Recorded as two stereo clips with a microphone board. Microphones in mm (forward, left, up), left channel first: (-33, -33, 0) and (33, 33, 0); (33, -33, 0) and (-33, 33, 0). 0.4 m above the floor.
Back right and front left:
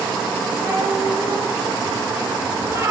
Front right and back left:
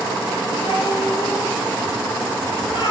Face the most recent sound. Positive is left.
turn(degrees=-15)